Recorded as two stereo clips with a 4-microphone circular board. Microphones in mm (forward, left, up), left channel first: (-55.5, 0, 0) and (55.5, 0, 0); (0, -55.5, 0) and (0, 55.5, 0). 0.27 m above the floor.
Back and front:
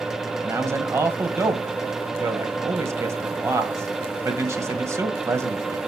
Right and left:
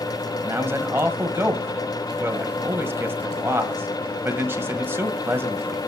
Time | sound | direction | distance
0.4 | a man speaking | 40° left | 1.3 m